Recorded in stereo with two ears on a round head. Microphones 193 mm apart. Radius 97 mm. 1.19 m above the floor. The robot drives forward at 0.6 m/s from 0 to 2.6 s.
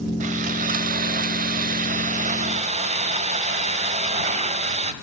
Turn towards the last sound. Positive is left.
turn(degrees=-30)  # may be behind; listen again after turning